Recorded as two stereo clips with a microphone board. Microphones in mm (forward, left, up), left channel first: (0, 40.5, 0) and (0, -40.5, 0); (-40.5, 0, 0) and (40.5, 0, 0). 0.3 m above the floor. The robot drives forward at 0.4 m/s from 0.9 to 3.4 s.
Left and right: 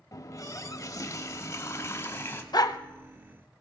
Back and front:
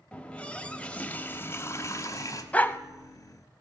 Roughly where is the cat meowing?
I don't hear a cat meowing.